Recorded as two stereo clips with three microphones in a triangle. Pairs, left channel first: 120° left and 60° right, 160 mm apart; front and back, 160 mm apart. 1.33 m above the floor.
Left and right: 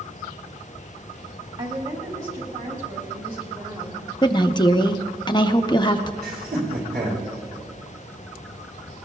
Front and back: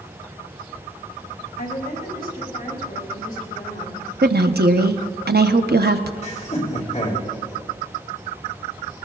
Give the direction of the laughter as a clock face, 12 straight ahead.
1 o'clock.